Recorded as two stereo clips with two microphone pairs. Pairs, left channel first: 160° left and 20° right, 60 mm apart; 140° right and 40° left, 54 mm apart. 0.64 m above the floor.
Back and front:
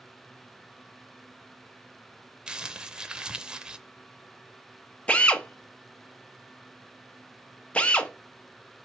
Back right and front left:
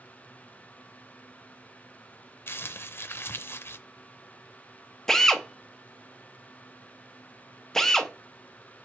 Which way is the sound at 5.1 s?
155° left.